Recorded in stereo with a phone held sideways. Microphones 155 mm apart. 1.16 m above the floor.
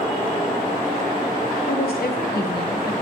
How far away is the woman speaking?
About 1.0 m.